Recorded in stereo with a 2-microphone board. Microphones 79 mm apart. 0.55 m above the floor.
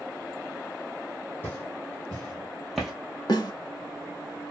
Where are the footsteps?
25° left (ahead or behind), 1.5 m; by 2.9 s 5° right (ahead or behind), 0.9 m.